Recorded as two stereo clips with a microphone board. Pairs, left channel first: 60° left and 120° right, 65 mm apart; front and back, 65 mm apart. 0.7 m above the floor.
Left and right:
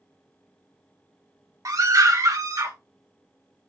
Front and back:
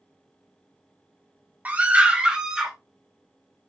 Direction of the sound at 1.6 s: 115° right.